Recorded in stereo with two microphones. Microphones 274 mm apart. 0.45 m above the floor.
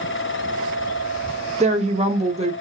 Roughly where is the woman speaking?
Right.